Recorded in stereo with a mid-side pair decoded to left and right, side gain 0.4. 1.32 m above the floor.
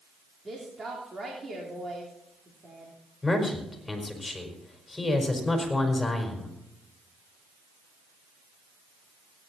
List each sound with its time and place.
0.5 s a woman speaking: 30° right, 3.5 m
3.2 s a man speaking: 25° left, 4.5 m